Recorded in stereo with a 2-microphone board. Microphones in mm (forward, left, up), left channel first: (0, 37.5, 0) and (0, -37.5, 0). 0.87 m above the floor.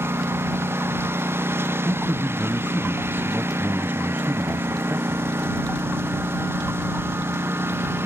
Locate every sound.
0.0 s a lawn mower: 35° right (ahead or behind)
1.9 s a man speaking: 25° right (ahead or behind)